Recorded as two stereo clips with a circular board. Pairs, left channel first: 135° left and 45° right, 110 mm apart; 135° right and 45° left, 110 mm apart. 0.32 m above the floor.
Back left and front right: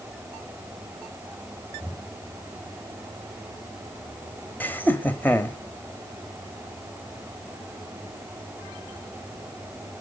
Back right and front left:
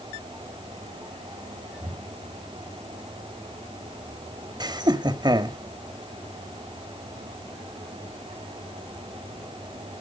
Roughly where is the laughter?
Left.